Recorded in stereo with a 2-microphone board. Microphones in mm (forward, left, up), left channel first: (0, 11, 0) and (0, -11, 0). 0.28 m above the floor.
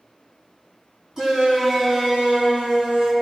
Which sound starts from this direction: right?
A shout, at 1.2 s.